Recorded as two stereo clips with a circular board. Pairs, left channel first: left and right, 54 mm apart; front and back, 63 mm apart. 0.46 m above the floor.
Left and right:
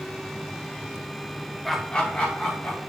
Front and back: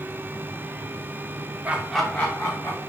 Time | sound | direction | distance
1.6 | laughter | 175° left | 0.7 m